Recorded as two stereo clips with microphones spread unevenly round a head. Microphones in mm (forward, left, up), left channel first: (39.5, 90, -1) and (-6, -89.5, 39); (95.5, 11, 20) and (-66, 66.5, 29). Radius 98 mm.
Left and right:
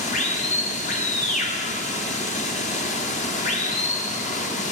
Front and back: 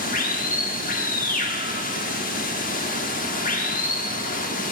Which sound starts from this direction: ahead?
Running water, at 0.0 s.